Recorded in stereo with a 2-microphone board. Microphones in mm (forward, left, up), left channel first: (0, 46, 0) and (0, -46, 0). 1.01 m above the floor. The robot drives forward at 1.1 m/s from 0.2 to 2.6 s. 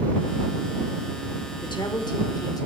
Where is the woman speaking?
60° left (ahead or behind), 2.5 m; by 2.7 s 40° left (ahead or behind), 3.5 m.